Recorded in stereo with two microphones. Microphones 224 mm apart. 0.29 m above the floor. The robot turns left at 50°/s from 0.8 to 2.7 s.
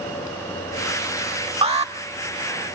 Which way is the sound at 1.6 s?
25° right (ahead or behind).